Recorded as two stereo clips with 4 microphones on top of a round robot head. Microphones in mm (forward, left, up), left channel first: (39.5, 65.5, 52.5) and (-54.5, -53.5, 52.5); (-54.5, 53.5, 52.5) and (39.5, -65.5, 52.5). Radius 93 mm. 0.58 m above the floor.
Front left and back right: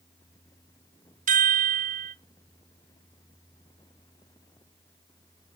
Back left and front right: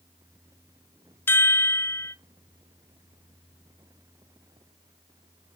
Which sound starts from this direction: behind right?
A chime, at 1.3 s.